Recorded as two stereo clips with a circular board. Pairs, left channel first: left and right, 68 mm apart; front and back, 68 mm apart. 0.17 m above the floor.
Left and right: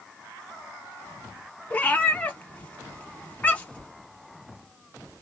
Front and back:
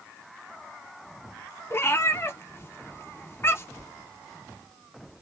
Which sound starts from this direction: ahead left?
A cat meowing, at 1.7 s.